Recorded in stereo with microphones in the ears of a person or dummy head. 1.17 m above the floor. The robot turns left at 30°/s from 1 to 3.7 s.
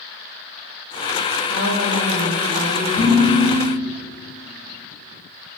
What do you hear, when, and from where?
1.5 s a woman speaking: 60° right, 2 m; by 2.9 s 100° right, 2 m
3.0 s dishes clattering: 10° left (ahead or behind), 2.5 m; by 3.7 s 30° left (ahead or behind), 2.5 m